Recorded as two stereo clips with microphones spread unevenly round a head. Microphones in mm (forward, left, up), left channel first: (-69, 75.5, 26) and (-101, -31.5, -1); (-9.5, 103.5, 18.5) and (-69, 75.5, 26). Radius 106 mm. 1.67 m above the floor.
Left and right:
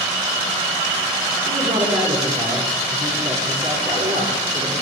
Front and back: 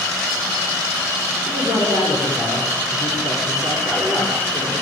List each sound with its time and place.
1.5 s a man speaking: 45° right, 6.5 m